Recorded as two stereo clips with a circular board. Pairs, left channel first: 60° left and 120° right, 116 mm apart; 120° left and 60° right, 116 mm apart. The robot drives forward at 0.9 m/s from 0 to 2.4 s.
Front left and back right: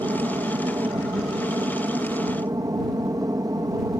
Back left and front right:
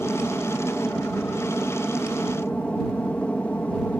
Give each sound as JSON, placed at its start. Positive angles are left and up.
{"t": 0.0, "sound": "an aircraft", "azimuth_deg": -165}